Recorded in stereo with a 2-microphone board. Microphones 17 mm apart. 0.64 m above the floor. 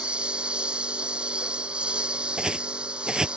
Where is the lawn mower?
85° right.